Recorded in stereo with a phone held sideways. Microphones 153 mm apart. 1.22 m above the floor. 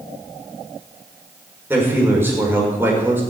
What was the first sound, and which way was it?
A man speaking, 15° right (ahead or behind).